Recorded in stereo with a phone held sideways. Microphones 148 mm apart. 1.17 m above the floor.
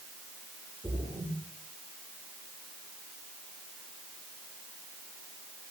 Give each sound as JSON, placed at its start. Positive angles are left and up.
{"t": 0.8, "sound": "a splash", "side_deg": -10, "distance_m": 3.0}